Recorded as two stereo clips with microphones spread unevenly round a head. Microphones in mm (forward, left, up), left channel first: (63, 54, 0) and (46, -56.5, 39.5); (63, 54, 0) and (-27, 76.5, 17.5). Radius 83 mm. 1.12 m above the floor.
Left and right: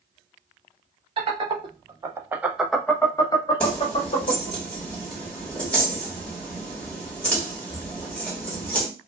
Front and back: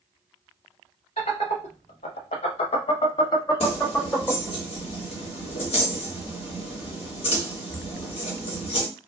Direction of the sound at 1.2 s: 60° right.